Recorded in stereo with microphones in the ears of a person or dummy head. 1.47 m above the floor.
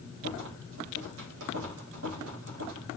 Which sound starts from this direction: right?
A rattle, at 0.2 s.